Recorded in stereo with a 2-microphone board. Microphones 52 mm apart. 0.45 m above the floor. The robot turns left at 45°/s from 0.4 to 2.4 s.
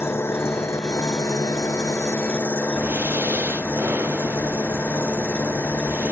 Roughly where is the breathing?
Right.